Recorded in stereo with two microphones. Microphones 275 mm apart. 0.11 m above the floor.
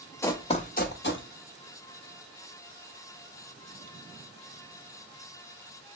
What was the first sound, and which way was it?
Running footsteps, 10° left (ahead or behind).